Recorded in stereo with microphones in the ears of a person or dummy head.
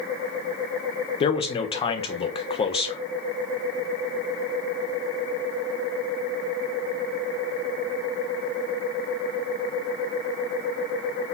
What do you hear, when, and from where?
1.2 s a man speaking: 25° left (ahead or behind), 0.7 m